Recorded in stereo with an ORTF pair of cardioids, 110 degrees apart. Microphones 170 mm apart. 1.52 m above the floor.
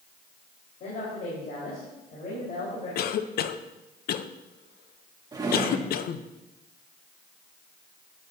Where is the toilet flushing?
No toilet flushing in this recording.